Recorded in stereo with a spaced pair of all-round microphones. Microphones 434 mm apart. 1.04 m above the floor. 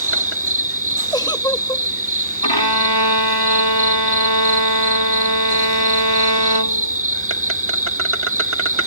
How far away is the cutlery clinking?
No cutlery clinking in this recording.